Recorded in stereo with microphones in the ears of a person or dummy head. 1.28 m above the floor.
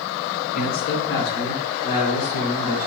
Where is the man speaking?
60° left (ahead or behind), 1.7 m; by 2.9 s 65° left (ahead or behind), 4.5 m.